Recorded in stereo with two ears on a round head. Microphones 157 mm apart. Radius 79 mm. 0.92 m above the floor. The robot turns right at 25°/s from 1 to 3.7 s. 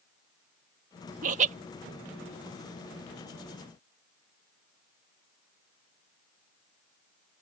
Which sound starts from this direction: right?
Laughter, at 1.2 s.